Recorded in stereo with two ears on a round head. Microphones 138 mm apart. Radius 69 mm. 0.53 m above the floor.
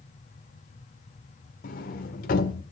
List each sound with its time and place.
1.6 s a sliding door: 60° left (ahead or behind), 1.5 m